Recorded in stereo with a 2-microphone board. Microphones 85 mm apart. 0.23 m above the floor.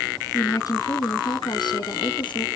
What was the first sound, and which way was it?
A woman speaking, 45° left (ahead or behind).